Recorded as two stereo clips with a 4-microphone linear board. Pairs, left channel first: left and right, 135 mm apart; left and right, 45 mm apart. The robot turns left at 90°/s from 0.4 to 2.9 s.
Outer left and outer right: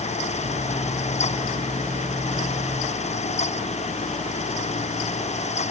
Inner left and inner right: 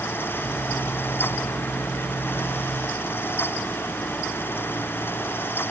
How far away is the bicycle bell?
I don't hear a bicycle bell.